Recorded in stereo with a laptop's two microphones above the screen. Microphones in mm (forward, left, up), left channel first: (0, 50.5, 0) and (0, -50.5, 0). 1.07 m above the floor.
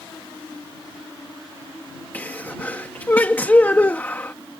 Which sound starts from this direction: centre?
A sneeze, at 2.1 s.